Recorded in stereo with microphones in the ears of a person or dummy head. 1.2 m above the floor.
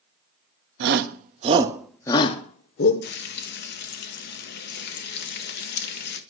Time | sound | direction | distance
0.8 | a shout | 60° right (ahead or behind) | 1.0 m
3.0 | frying | 55° left (ahead or behind) | 0.8 m